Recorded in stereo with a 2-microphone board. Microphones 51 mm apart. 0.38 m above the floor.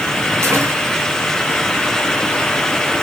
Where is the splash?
60° right (ahead or behind), 6 m.